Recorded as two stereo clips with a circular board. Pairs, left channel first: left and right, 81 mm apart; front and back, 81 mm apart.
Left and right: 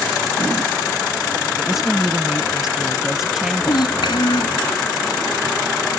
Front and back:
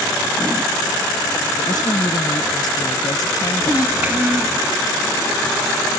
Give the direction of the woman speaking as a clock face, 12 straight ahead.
12 o'clock.